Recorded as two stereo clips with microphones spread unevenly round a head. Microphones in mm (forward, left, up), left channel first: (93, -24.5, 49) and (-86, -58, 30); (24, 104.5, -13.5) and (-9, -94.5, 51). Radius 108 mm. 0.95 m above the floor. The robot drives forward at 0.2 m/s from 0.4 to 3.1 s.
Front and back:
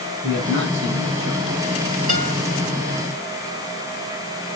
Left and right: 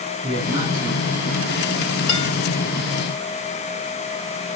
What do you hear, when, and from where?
0.2 s a man speaking: 170° right, 8.5 m
2.1 s a guitar: 145° left, 4.5 m